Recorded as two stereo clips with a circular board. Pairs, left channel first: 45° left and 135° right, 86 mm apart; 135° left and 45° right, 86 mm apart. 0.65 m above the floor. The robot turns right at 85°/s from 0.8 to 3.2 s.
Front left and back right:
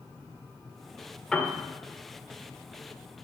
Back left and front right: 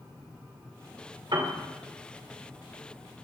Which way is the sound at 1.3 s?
35° right.